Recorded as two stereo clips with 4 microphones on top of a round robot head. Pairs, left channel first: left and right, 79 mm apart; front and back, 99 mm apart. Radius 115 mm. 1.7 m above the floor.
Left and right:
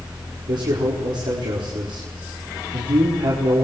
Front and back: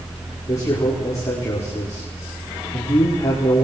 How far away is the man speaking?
About 4.5 m.